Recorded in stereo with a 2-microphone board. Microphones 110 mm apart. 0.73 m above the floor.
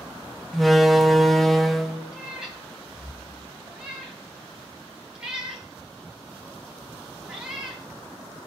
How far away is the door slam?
About 0.6 m.